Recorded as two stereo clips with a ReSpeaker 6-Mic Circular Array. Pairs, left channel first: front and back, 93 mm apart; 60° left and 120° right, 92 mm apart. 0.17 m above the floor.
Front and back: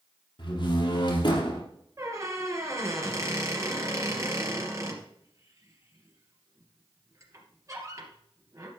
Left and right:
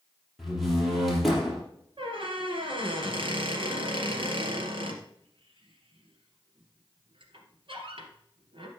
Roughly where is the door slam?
Ahead right.